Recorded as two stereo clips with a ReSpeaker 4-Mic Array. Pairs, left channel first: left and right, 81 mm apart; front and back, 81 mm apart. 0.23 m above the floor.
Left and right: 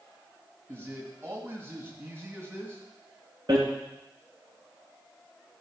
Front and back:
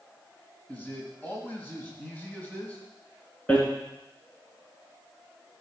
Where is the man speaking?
50° right, 1.8 m.